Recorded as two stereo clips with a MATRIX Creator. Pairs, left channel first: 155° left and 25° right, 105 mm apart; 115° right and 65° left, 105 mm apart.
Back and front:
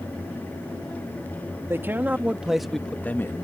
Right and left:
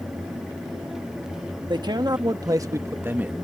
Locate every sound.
1.7 s a man speaking: 35° left; by 3.4 s 135° left